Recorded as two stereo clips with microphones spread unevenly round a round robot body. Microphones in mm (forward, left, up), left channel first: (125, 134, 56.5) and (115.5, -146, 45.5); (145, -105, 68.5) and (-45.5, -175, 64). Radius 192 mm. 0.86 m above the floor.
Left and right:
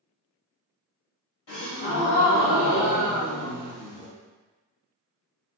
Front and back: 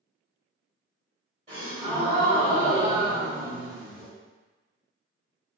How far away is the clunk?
No clunk in this recording.